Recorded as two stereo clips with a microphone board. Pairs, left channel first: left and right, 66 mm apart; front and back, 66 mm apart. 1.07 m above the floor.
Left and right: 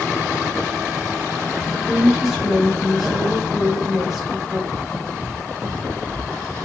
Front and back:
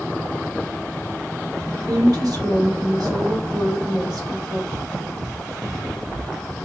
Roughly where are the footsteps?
Behind right.